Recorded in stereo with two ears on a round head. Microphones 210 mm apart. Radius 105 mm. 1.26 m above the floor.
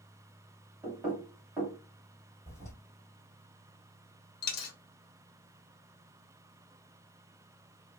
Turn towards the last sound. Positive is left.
turn(degrees=40)  # may be behind; listen again after turning